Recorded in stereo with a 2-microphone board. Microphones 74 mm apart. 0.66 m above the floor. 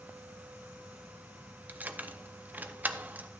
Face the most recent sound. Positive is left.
turn(degrees=-25)  # may be behind; listen again after turning